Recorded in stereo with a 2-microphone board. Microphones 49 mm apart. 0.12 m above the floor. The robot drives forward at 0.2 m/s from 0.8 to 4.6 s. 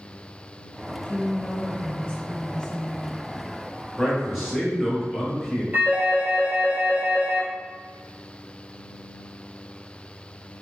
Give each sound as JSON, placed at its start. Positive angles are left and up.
{"t": 1.1, "sound": "a woman speaking", "side_deg": 20, "distance_m": 1.1}
{"t": 4.0, "sound": "a man speaking", "side_deg": 0, "distance_m": 1.6}
{"t": 5.7, "sound": "a phone ringing", "side_deg": -35, "distance_m": 1.7}